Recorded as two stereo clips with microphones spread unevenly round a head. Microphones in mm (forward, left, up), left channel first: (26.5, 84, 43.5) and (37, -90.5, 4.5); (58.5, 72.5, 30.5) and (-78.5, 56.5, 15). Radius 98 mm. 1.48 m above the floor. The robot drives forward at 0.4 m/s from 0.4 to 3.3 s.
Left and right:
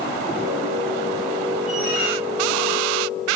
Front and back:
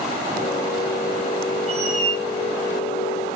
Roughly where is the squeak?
Behind left.